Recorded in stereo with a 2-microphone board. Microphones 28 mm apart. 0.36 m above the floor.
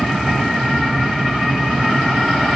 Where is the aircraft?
5° left (ahead or behind).